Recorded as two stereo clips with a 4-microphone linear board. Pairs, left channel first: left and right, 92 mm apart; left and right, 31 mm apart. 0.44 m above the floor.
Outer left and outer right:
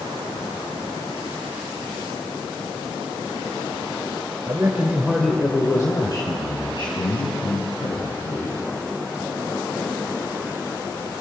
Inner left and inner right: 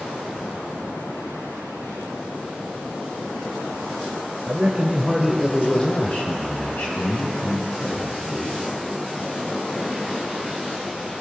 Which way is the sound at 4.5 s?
35° right (ahead or behind).